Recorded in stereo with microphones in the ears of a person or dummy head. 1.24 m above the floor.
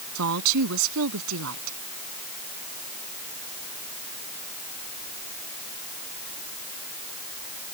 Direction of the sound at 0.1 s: 75° right (ahead or behind).